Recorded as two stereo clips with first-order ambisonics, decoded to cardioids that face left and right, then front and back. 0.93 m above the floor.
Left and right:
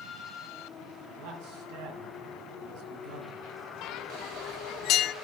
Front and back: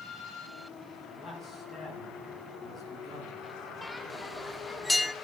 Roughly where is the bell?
Left.